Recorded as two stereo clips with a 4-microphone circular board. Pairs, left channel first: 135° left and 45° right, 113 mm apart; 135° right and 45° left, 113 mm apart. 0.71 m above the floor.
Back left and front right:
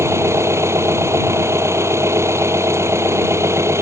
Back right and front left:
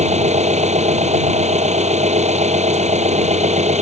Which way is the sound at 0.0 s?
25° left.